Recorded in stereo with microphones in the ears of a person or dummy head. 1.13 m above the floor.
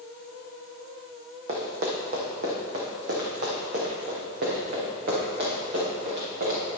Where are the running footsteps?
45° right (ahead or behind), 2.0 m; by 6.6 s 60° right (ahead or behind), 5 m.